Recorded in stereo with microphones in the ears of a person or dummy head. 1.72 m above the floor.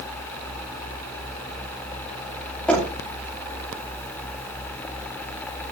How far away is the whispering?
I don't hear whispering.